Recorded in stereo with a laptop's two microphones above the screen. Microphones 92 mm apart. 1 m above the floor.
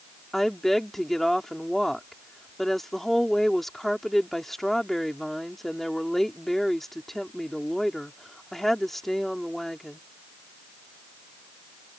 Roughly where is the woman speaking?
Centre.